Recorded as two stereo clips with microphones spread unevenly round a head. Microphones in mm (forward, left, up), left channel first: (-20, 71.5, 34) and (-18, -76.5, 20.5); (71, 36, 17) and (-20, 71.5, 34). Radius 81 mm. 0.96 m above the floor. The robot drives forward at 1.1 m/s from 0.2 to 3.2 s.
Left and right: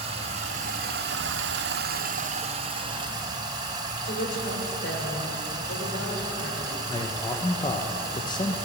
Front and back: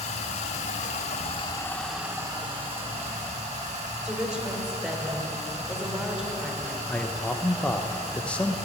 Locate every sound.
0.0 s running water: 35° right, 1.7 m; by 8.7 s 155° right, 2 m
4.0 s a woman speaking: 80° left, 3 m
6.9 s a man speaking: 40° left, 0.9 m